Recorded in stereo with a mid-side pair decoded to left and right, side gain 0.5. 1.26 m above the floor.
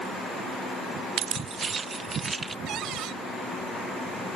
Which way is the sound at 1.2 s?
70° right.